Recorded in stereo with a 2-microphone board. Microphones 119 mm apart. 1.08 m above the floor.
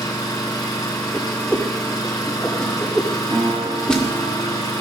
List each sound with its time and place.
0.0 s an engine running: 35° left (ahead or behind), 3.5 m
1.1 s a whoosh: 5° left (ahead or behind), 2.0 m
3.3 s a guitar: 30° right (ahead or behind), 2.5 m